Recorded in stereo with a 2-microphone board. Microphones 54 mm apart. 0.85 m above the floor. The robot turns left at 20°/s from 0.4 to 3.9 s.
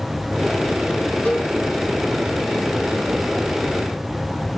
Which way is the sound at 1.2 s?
30° left (ahead or behind).